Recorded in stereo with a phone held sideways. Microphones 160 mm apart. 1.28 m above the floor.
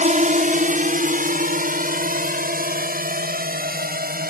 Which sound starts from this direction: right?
A drone, at 0.0 s.